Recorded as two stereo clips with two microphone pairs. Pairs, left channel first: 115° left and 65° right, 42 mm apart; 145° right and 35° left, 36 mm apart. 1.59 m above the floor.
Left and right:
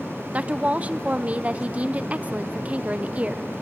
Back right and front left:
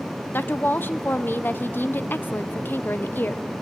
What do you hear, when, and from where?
0.3 s a woman speaking: 120° right, 0.8 m